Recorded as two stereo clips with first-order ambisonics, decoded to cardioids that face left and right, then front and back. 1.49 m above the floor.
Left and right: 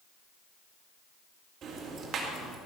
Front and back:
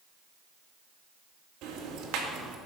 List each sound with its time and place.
1.6 s ticking: 145° right, 2 m